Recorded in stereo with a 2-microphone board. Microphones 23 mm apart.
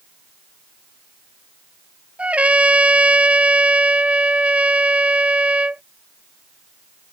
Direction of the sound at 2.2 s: 75° right (ahead or behind).